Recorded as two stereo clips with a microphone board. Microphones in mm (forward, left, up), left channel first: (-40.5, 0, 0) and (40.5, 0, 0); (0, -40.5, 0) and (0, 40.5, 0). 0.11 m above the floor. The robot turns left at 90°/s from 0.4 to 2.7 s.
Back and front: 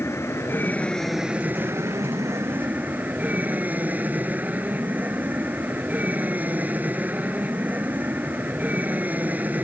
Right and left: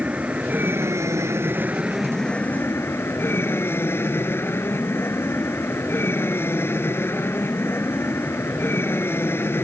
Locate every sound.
0.0 s an aircraft: 150° left; by 9.6 s 55° right